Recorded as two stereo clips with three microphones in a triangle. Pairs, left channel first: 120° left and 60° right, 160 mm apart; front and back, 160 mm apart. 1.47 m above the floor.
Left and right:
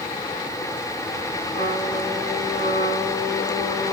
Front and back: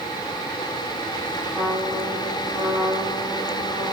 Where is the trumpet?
95° left, 3.5 m.